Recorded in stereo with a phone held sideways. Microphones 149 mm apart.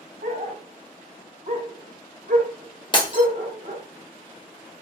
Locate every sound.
0.2 s a dog barking: 55° right (ahead or behind), 1.0 m
2.9 s breaking glass: 30° left (ahead or behind), 0.8 m